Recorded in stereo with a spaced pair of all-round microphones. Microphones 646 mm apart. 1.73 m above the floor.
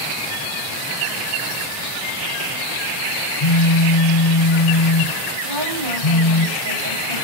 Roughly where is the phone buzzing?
Left.